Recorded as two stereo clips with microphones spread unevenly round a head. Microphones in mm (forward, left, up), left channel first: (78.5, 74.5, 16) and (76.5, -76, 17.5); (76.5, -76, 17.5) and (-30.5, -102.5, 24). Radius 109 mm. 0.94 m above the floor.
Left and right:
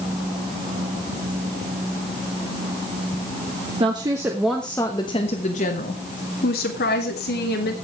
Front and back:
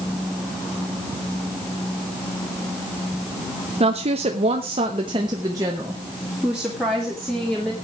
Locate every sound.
3.8 s a woman speaking: 150° right, 1.2 m; by 7.7 s 100° left, 2.5 m